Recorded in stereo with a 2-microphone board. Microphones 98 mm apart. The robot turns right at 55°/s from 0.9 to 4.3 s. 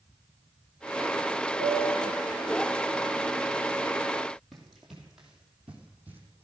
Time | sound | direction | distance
1.6 | a piano | 85° right | 9.5 m
4.5 | running footsteps | centre (ahead or behind) | 3 m